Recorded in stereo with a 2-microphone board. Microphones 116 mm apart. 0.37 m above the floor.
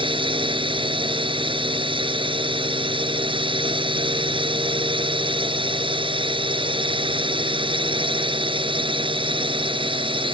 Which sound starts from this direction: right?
A drone, at 0.0 s.